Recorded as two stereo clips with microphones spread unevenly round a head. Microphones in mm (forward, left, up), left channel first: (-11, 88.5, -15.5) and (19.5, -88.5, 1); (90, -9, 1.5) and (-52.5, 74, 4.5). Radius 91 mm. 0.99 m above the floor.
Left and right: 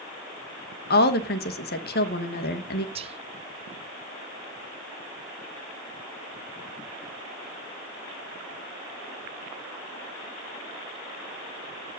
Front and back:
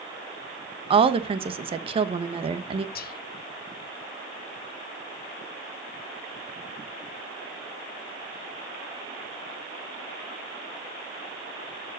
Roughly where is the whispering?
Ahead right.